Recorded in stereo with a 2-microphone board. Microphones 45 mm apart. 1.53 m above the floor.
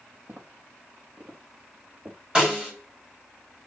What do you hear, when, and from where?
0.3 s footsteps: 55° right (ahead or behind), 5 m; by 2.2 s 50° right (ahead or behind), 6 m
2.4 s a snare drum: 25° right (ahead or behind), 4.5 m